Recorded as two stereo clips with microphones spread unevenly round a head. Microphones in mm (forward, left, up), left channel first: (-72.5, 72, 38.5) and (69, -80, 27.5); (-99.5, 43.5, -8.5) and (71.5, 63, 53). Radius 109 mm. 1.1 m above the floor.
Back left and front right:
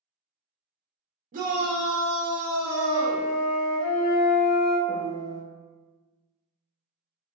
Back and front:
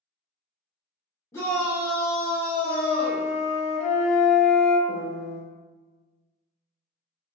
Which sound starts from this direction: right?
A shout, at 1.3 s.